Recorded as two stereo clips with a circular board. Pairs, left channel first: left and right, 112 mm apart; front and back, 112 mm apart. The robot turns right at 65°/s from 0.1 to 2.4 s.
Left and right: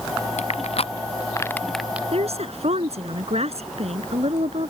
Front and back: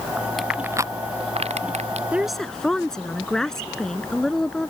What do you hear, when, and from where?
0.4 s crushing: 90° left; by 2.0 s 165° right
2.1 s a woman speaking: 105° right; by 4.7 s 85° right